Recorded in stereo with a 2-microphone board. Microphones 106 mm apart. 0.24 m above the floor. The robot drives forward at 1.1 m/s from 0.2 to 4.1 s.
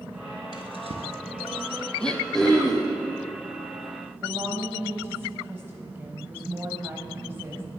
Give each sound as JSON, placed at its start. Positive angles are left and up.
{"t": 0.5, "sound": "a drawer", "side_deg": -55, "distance_m": 1.3}
{"t": 2.0, "sound": "throat clearing", "side_deg": 10, "distance_m": 1.2}
{"t": 4.2, "sound": "a woman speaking", "side_deg": -20, "distance_m": 1.0}